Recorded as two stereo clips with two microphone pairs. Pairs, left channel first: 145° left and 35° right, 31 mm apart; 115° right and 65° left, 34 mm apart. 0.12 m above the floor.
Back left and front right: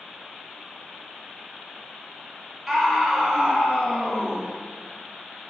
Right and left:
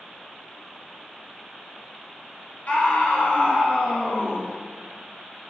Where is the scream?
115° right, 1.8 m.